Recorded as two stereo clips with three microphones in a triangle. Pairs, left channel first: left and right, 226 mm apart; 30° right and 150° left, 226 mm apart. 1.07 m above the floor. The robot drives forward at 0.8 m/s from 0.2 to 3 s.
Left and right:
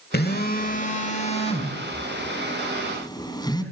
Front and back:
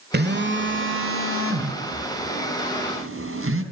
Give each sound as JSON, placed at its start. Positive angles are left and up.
{"t": 0.1, "sound": "a phone buzzing", "azimuth_deg": 120, "distance_m": 1.3}